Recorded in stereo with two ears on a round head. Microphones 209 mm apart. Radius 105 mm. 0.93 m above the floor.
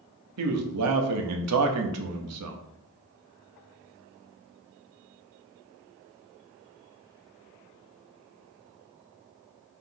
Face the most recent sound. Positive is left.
turn(degrees=-75)  # may be behind; listen again after turning